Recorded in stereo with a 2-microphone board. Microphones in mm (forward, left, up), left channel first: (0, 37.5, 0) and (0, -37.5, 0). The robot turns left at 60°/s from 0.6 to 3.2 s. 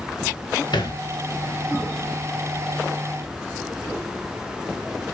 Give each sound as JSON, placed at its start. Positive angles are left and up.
{"t": 0.7, "sound": "a thud", "side_deg": 75, "distance_m": 1.4}